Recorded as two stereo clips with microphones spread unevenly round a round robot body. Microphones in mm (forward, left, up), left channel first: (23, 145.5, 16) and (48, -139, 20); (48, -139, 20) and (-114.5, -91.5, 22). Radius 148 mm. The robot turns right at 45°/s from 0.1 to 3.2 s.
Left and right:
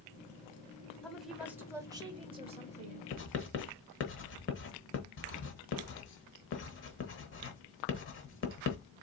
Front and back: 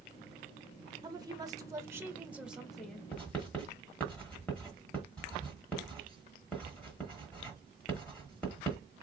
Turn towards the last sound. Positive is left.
turn(degrees=65)